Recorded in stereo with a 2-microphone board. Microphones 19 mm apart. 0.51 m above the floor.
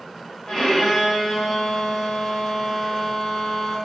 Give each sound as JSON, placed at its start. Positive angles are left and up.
{"t": 0.5, "sound": "a violin", "side_deg": 35, "distance_m": 0.7}